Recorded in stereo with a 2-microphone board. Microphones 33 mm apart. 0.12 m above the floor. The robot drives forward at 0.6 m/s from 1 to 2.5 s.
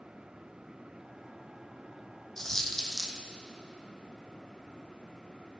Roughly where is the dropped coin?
Centre.